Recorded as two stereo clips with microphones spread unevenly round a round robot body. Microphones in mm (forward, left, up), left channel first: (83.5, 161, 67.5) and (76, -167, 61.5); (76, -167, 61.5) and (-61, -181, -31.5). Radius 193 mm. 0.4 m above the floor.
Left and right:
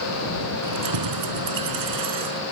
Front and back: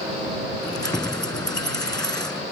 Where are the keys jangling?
65° right.